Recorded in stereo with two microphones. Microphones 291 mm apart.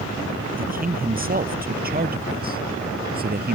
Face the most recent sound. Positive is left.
turn(degrees=-30)  # may be behind; listen again after turning